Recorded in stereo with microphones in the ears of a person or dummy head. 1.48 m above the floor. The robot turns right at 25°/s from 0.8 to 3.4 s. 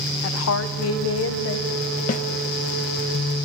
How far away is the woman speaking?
About 0.7 m.